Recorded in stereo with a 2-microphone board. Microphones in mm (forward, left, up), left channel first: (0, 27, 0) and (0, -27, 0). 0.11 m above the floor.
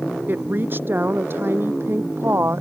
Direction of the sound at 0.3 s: 35° right (ahead or behind).